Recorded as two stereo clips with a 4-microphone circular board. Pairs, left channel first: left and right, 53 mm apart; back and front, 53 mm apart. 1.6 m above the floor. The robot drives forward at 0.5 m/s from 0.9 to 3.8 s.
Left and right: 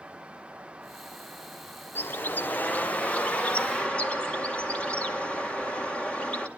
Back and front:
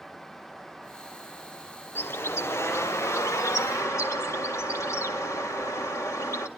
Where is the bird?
135° left, 0.9 m; by 6.5 s 160° left, 1.7 m.